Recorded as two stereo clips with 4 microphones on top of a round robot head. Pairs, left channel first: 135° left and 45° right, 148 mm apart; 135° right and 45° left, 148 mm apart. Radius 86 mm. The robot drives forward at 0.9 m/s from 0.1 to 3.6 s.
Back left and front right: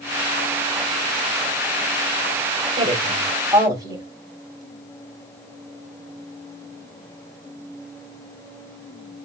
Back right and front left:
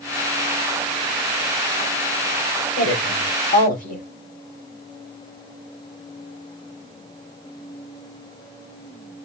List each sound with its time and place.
2.8 s a woman speaking: 100° right, 3.5 m; by 4.1 s 110° right, 3.5 m